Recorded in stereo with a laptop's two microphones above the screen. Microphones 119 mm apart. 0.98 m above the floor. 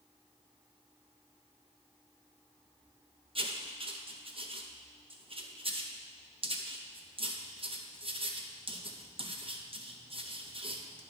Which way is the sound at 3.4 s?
50° right (ahead or behind).